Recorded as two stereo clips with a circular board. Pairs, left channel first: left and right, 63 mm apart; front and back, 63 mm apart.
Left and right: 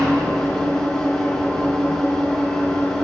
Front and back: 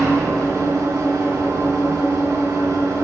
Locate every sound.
0.0 s an engine running: 170° left, 6.5 m